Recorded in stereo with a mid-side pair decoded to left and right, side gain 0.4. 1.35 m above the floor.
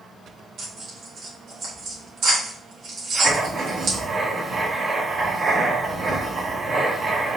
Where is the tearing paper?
65° right, 2 m.